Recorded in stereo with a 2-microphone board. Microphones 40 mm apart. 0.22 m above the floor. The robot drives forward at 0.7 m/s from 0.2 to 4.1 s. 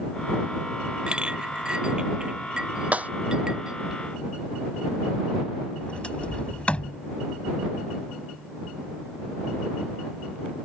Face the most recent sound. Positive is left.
turn(degrees=30)  # may be behind; listen again after turning